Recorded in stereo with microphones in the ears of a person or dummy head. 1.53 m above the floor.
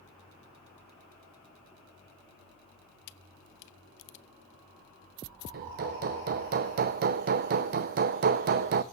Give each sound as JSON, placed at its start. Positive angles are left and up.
{"t": 3.1, "sound": "a camera shutter", "side_deg": 65, "distance_m": 0.6}
{"t": 5.5, "sound": "hammering", "side_deg": -45, "distance_m": 0.7}